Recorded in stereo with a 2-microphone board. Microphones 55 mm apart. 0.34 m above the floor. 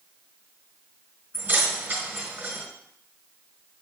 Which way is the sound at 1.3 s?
35° right (ahead or behind).